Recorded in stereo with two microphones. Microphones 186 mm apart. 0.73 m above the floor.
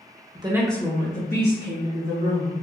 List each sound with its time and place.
0.3 s a woman speaking: 30° right (ahead or behind), 0.7 m; by 2.5 s 70° left (ahead or behind), 2.5 m